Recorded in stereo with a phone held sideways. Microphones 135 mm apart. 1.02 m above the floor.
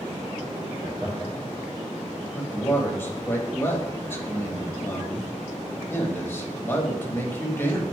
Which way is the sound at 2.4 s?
15° left (ahead or behind).